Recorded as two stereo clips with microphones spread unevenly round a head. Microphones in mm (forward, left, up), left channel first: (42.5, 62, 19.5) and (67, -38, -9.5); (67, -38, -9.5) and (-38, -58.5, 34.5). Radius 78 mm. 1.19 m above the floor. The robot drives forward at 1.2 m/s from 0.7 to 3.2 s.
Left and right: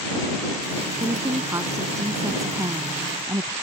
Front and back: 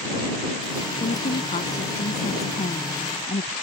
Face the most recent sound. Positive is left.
turn(degrees=-20)